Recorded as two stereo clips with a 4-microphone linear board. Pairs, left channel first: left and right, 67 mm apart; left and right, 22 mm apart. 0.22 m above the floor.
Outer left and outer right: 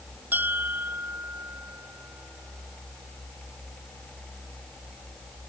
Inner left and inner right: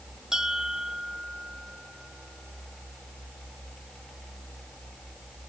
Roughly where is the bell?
Right.